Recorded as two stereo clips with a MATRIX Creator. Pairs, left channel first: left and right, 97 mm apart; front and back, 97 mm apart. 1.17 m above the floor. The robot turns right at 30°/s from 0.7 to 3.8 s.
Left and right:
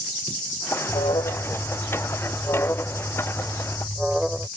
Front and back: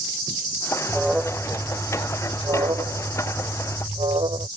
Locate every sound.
0.9 s an alarm: 95° left; by 4.5 s straight behind